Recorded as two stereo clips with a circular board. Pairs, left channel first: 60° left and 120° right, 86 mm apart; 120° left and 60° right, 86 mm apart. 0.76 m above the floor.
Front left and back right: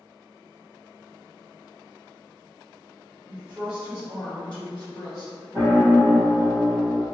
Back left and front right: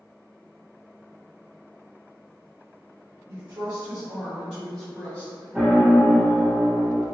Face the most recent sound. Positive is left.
turn(degrees=-110)